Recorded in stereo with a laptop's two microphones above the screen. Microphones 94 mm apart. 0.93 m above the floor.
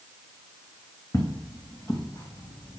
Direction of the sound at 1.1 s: 35° left (ahead or behind).